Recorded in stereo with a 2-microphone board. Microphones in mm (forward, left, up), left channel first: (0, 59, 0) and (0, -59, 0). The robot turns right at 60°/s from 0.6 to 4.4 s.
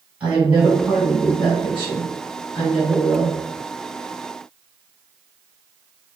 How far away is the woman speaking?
About 2 m.